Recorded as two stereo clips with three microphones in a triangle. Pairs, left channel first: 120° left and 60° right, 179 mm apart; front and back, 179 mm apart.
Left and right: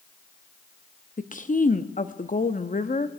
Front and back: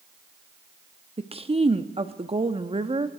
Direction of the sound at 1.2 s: 135° left.